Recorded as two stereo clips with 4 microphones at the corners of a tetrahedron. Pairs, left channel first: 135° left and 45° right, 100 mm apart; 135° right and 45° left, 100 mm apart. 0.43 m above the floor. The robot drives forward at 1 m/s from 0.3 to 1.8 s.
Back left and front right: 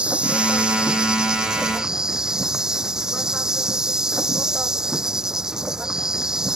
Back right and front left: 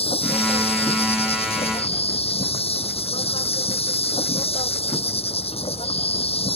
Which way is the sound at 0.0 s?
125° right.